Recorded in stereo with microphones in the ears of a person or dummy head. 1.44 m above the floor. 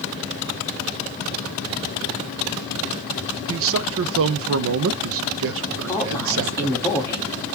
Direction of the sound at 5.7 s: 15° left (ahead or behind).